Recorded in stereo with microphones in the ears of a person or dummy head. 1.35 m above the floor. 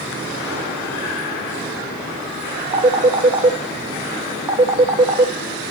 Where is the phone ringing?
25° right (ahead or behind), 0.9 m.